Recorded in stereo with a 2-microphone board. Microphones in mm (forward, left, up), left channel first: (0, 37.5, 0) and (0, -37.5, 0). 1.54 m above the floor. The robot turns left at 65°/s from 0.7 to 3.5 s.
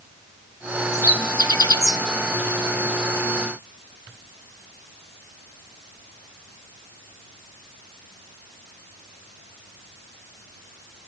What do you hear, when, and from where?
0.9 s a bird: 45° left (ahead or behind), 0.7 m